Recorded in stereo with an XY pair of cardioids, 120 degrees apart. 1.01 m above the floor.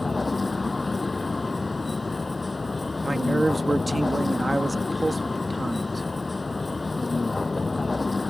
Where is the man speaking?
10° right.